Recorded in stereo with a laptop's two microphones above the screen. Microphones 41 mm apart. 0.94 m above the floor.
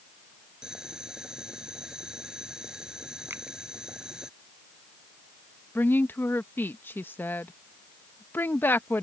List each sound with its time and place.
0.6 s boiling: 20° right (ahead or behind)
3.3 s a finger snap: 65° right (ahead or behind)
5.8 s a woman speaking: 60° left (ahead or behind)